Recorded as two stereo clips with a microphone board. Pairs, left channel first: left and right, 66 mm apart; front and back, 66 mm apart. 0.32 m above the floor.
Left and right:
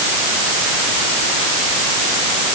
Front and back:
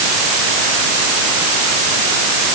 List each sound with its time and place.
Only background noise.